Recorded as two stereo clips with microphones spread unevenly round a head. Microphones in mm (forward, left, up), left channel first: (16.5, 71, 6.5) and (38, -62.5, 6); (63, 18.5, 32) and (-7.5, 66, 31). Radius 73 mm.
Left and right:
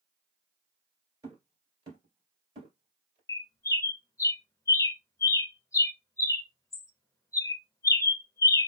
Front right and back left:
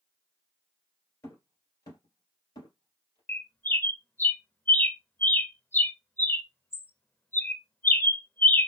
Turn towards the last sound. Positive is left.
turn(degrees=30)